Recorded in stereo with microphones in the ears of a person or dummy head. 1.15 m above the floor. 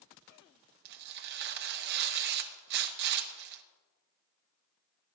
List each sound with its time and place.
0.8 s tearing paper: 50° right (ahead or behind), 0.8 m